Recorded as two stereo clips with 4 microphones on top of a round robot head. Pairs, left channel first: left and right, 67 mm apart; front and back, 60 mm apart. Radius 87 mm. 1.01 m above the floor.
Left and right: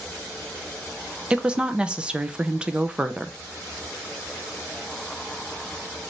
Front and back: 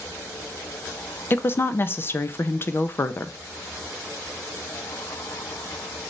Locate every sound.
1.3 s a woman speaking: 20° right, 0.5 m